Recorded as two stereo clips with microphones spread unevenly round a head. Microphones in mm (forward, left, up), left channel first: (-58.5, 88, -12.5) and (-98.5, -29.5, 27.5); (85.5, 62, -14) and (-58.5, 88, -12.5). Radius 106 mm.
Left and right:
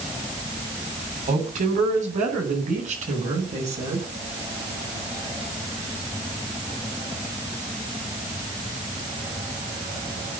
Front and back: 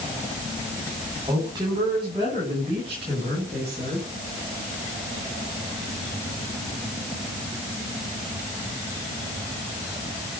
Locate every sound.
1.3 s a woman speaking: 120° right, 9 m; by 4.1 s 130° right, 12 m